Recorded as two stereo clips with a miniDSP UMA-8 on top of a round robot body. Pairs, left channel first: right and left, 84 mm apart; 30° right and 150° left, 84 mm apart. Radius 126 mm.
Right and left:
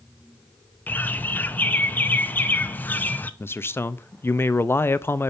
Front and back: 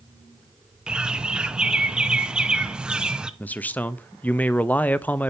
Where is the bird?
140° right, 0.8 m.